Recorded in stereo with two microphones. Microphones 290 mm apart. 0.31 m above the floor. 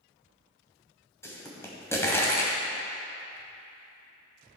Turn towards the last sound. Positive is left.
turn(degrees=10)  # may be behind; listen again after turning